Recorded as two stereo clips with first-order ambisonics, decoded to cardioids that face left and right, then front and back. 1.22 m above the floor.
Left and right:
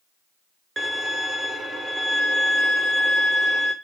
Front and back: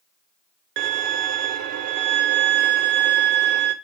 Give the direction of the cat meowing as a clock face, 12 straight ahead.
No cat meowing in this recording.